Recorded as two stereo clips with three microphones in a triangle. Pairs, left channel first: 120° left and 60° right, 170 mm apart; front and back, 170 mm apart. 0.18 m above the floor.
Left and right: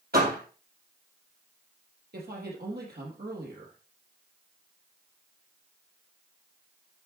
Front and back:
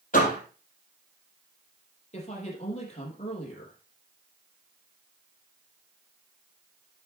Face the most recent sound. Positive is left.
turn(degrees=-50)